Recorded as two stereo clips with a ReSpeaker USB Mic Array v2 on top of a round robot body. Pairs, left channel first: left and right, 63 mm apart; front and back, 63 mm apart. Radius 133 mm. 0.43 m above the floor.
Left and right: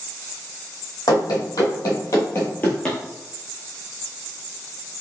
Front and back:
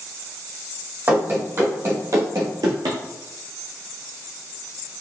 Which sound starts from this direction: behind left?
Running footsteps, at 1.1 s.